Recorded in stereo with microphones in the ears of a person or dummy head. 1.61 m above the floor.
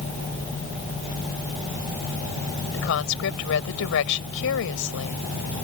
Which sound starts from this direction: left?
A woman speaking, at 2.7 s.